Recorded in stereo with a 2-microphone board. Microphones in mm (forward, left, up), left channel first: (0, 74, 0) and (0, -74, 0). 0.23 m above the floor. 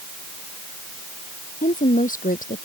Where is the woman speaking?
65° left (ahead or behind).